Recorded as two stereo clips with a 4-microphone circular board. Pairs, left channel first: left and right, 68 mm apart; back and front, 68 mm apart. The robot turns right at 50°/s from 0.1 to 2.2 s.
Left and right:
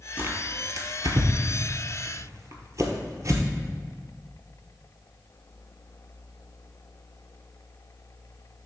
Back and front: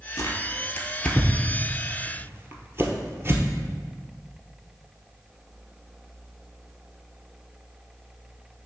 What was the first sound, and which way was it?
Tearing paper, 150° right.